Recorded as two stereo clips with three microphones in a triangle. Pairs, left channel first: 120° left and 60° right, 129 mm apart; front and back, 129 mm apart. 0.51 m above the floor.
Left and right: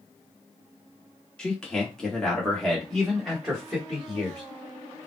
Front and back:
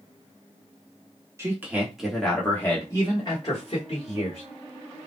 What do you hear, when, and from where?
1.4 s a man speaking: 170° right, 1.1 m; by 4.4 s 30° left, 1.7 m